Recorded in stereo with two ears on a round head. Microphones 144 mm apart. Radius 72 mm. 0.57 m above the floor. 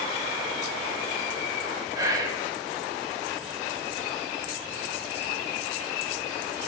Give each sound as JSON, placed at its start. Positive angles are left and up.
{"t": 1.9, "sound": "whispering", "side_deg": -20, "distance_m": 0.7}